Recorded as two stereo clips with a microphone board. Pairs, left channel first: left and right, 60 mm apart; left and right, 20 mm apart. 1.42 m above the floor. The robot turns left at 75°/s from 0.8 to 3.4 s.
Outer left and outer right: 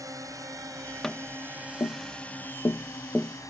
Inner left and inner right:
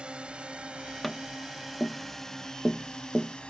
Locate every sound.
0.0 s a drone: 85° right; by 3.5 s 75° left (ahead or behind)
1.0 s tapping: 5° left (ahead or behind); by 3.4 s centre (ahead or behind)